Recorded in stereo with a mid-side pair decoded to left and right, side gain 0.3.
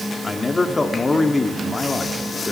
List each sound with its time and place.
0.2 s a man speaking: 40° left, 2.5 m